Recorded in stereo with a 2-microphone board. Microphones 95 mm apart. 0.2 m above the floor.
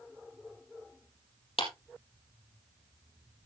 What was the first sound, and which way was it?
A clap, 75° left (ahead or behind).